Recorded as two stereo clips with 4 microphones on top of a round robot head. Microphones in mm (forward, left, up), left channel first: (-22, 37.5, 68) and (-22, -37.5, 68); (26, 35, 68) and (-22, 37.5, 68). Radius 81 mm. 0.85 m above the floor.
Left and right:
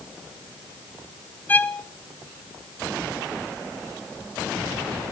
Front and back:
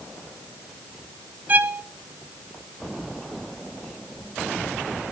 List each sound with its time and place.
1.5 s a violin: 145° left, 1.0 m